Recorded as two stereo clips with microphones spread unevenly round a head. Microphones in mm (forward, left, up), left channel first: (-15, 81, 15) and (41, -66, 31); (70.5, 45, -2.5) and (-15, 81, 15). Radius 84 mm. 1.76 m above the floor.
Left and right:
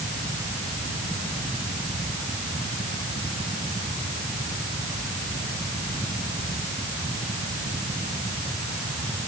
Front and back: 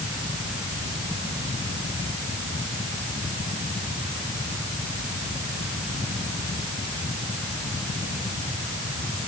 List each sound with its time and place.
Only background noise.